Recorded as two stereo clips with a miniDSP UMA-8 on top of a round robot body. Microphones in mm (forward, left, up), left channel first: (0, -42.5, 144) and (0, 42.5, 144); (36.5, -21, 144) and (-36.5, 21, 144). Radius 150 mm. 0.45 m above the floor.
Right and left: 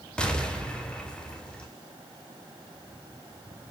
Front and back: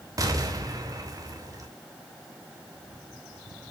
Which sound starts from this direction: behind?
An explosion, at 0.2 s.